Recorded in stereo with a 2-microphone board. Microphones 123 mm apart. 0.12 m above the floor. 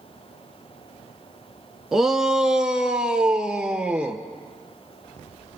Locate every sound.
1.9 s a shout: 5° right (ahead or behind), 1.1 m; by 4.2 s 10° right (ahead or behind), 2.5 m